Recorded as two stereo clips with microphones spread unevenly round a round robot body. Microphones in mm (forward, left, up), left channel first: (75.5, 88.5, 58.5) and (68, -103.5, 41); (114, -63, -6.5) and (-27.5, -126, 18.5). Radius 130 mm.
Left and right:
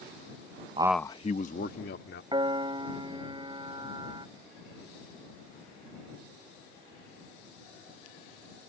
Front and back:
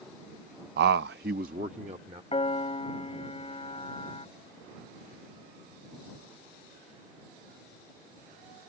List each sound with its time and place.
0.8 s a man speaking: 150° right; by 2.2 s 135° left
2.3 s a piano: 25° right